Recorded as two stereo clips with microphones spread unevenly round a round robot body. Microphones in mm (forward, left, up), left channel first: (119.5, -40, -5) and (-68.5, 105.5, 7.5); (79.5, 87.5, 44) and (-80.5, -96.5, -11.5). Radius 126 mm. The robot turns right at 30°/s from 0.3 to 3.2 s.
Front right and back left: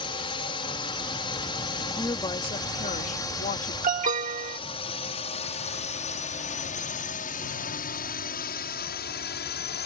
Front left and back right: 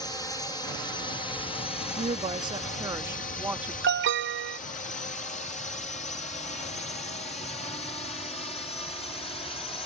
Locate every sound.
0.0 s a drone: 35° right; by 9.9 s 25° right
2.0 s a woman speaking: 105° right; by 3.7 s 70° right
3.8 s an alarm: 155° right